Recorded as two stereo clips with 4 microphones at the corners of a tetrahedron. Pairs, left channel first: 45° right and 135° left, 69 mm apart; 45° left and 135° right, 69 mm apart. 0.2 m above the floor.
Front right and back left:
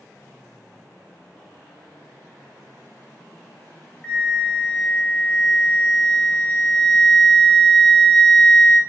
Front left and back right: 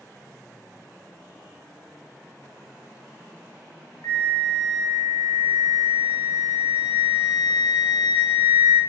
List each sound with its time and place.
4.0 s a flute: 30° left, 0.6 m